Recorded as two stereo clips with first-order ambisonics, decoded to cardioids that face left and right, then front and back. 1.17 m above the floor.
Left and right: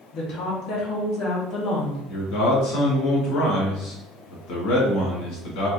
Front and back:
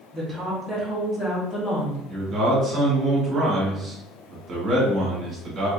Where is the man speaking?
115° left, 1.7 m.